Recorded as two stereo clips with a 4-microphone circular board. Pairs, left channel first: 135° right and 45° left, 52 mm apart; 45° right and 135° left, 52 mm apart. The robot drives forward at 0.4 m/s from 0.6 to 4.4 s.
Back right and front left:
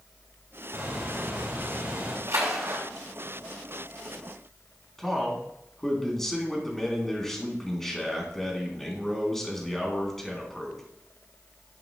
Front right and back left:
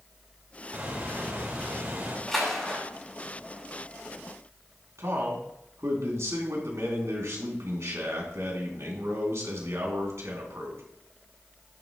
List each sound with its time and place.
0.7 s a bird: 80° left, 4 m; by 2.2 s 85° left, 4 m
2.3 s a splash: 40° left, 3.5 m
5.0 s a man speaking: 140° left, 3 m